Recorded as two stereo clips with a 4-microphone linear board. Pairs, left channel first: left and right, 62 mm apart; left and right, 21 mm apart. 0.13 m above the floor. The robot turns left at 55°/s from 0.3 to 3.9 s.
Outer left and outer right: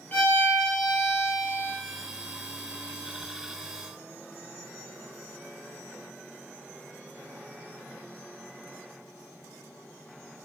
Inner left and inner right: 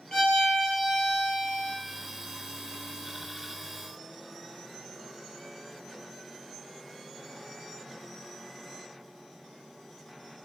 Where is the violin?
35° left, 1.2 m; by 1.7 s 45° right, 1.2 m.